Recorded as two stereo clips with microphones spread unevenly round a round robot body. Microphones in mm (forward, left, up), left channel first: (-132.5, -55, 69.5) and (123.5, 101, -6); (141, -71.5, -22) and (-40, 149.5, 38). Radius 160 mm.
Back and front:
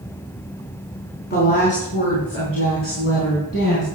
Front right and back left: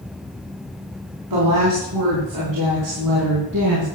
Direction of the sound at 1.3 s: 150° left.